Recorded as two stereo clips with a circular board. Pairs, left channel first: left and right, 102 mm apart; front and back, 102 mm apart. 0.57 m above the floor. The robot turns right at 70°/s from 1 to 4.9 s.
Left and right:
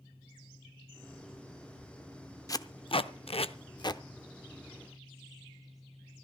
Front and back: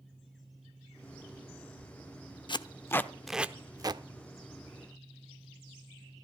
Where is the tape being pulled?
35° left, 0.5 m; by 4.0 s 145° left, 0.5 m.